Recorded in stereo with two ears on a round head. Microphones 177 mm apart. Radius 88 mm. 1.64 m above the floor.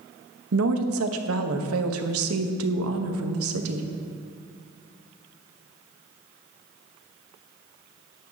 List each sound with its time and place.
0.5 s a woman speaking: 85° right, 1.0 m